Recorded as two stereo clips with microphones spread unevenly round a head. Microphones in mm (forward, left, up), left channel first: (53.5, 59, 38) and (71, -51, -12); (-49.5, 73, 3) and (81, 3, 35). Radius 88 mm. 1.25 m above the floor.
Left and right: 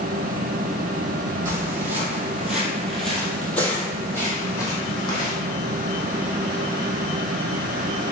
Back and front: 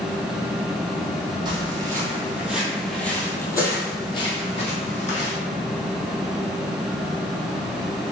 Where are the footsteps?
5° left, 1.7 m; by 5.3 s 110° left, 2 m.